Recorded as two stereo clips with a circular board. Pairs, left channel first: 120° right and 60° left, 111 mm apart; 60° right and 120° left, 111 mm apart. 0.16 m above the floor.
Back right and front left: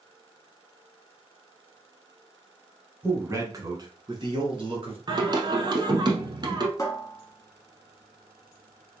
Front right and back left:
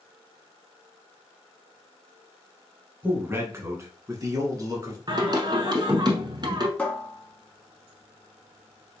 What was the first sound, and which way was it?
A man speaking, 85° left.